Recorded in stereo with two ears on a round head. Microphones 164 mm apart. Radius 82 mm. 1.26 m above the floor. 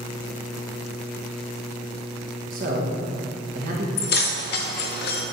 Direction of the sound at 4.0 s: 55° left (ahead or behind).